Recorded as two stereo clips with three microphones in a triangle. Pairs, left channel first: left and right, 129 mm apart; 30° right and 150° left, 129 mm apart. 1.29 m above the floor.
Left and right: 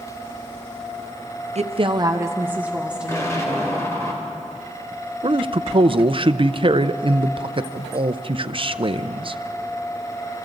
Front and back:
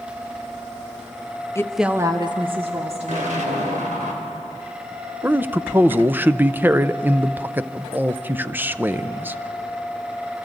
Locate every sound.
1.6 s a woman speaking: 95° right, 0.8 m; by 3.8 s straight behind, 3.5 m
3.1 s an explosion: 155° left, 3 m
5.2 s a man speaking: 135° right, 0.5 m